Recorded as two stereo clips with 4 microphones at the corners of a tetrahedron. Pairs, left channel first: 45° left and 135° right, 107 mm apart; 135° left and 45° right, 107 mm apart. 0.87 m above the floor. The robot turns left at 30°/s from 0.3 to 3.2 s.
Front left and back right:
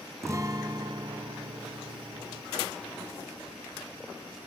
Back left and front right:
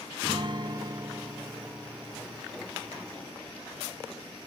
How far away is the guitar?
About 0.5 m.